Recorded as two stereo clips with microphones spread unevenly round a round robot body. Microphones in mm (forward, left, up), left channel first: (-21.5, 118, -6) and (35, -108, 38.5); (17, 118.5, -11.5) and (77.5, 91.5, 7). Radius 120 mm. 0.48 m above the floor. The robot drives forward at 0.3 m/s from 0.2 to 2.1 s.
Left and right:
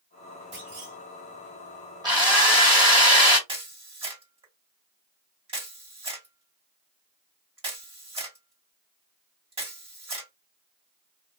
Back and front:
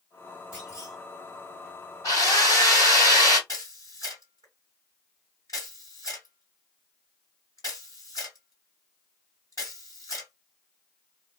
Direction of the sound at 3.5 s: 145° right.